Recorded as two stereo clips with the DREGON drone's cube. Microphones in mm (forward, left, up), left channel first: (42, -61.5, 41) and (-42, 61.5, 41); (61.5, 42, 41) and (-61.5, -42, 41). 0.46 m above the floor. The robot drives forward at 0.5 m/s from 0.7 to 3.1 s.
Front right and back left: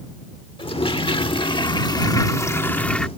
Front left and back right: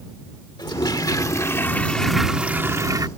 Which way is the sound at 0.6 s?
15° right.